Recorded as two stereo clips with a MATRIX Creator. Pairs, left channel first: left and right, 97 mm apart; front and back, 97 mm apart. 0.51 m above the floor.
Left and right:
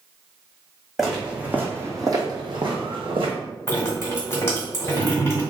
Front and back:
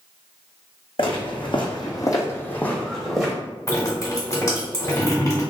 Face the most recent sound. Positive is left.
turn(degrees=35)